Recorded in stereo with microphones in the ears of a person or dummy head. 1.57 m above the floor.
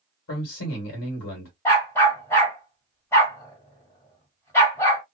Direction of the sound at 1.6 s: 15° left (ahead or behind).